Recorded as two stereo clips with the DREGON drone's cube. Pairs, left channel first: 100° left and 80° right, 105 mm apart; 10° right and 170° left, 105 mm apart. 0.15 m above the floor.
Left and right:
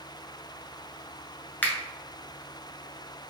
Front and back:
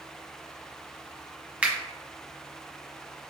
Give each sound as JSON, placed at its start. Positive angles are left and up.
{"t": 1.6, "sound": "a finger snap", "azimuth_deg": 120, "distance_m": 1.0}